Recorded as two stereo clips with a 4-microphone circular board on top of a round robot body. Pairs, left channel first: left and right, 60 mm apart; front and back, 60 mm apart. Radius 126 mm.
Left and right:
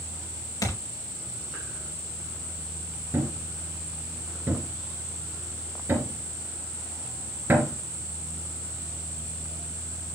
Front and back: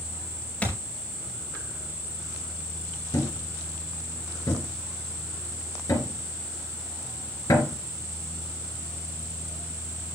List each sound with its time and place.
0.6 s a thud: 70° left, 4 m
3.1 s a thud: 30° right, 3 m